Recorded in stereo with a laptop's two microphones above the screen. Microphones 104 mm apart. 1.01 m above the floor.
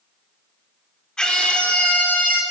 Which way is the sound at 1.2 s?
5° left (ahead or behind).